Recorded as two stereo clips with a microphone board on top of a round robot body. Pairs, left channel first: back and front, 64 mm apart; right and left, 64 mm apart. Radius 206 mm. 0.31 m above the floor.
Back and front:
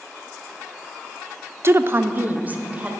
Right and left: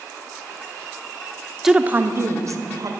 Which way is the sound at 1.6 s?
10° left.